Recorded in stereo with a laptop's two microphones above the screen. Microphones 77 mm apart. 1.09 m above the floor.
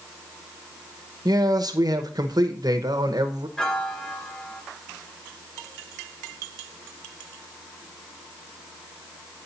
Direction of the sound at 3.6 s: 10° left (ahead or behind).